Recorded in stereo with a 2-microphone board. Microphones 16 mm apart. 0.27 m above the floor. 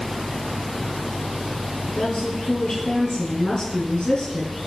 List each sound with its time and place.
1.9 s a woman speaking: 55° left (ahead or behind), 3 m